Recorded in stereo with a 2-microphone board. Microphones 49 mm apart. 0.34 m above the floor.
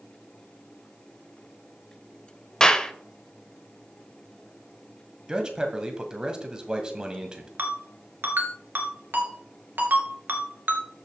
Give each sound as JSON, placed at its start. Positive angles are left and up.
{"t": 2.6, "sound": "a clap", "side_deg": 15, "distance_m": 0.7}
{"t": 5.3, "sound": "a man speaking", "side_deg": -15, "distance_m": 1.7}
{"t": 7.6, "sound": "a ringtone", "side_deg": -45, "distance_m": 2.0}